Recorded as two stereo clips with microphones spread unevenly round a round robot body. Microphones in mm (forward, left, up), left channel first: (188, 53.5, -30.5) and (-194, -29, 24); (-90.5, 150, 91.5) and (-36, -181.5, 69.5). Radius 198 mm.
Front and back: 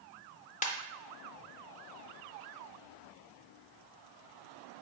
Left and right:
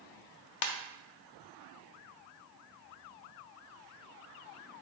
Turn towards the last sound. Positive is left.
turn(degrees=85)